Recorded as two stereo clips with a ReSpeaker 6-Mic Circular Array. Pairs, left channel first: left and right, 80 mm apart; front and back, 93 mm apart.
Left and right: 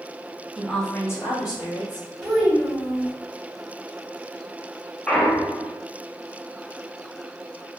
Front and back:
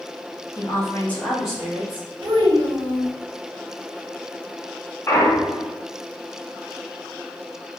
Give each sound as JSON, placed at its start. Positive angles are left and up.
{"t": 0.6, "sound": "a woman speaking", "azimuth_deg": -10, "distance_m": 0.7}
{"t": 2.2, "sound": "a child speaking", "azimuth_deg": 180, "distance_m": 1.3}
{"t": 5.1, "sound": "a clunk", "azimuth_deg": 20, "distance_m": 0.5}